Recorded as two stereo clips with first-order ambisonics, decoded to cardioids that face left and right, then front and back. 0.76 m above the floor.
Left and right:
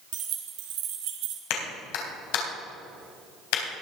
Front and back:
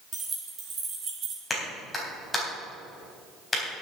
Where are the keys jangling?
115° right, 2.5 m; by 1.4 s 120° right, 1.7 m.